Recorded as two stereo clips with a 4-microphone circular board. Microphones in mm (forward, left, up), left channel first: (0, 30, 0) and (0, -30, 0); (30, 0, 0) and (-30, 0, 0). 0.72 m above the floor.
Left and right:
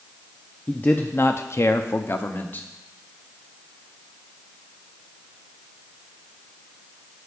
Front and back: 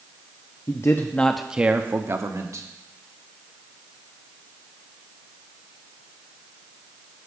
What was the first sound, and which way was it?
A man speaking, 25° left.